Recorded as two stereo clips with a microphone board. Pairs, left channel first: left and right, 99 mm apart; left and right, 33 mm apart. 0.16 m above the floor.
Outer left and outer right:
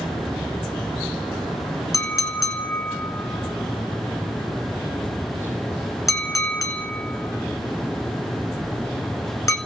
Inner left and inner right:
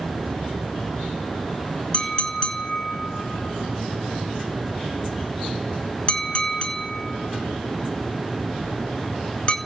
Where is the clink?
35° left (ahead or behind), 1.2 m.